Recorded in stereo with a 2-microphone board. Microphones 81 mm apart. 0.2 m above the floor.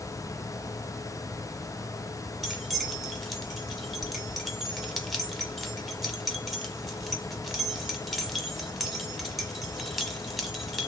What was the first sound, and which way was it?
Keys jangling, centre (ahead or behind).